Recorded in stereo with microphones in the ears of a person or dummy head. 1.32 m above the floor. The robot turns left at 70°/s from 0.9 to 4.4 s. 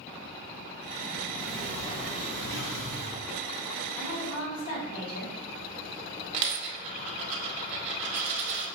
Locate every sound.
1.4 s a sliding door: 160° right, 0.7 m; by 3.2 s 75° left, 0.7 m
4.0 s a woman speaking: 160° left, 1.3 m; by 5.4 s 130° left, 1.3 m
6.3 s a dropped coin: 35° right (ahead or behind), 0.9 m